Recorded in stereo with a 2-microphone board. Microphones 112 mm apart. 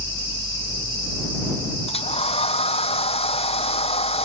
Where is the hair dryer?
65° left (ahead or behind).